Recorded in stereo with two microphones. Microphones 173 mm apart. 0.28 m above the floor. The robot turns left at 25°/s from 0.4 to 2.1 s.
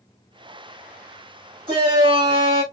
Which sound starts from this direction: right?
A shout, at 1.7 s.